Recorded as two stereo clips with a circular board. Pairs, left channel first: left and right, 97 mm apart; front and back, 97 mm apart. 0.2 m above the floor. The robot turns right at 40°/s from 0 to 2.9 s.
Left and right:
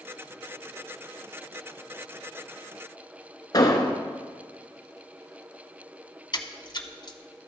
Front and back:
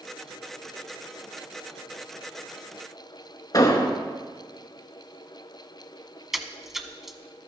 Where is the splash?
95° left, 0.5 m.